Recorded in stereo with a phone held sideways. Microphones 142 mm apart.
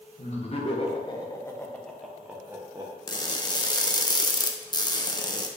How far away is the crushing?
About 0.6 m.